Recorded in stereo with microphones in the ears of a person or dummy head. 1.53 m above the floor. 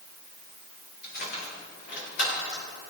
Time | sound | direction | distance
1.0 | keys jangling | 45° left (ahead or behind) | 4.5 m